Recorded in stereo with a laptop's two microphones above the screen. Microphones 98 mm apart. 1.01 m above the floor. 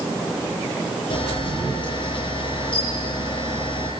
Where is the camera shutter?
50° left (ahead or behind), 8.5 m.